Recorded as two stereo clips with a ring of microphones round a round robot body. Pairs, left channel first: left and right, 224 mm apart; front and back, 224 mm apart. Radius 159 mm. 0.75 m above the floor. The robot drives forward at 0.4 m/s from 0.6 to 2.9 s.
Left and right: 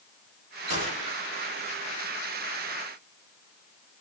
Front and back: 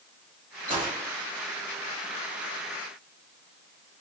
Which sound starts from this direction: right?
A gunshot, at 0.7 s.